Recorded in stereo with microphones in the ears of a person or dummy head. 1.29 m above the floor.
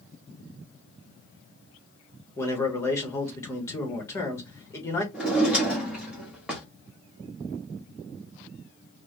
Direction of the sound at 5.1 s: Centre (ahead or behind).